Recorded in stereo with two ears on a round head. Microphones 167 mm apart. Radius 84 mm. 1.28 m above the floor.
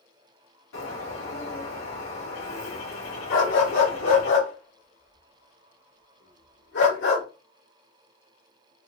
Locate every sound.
0.7 s a bird: 75° left (ahead or behind), 2 m
3.3 s a dog barking: 70° left (ahead or behind), 1.9 m